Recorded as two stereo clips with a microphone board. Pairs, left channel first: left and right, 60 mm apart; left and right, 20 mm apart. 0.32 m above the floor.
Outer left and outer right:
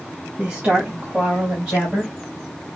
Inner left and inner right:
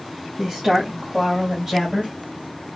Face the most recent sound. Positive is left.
turn(degrees=0)  # may be behind; listen again after turning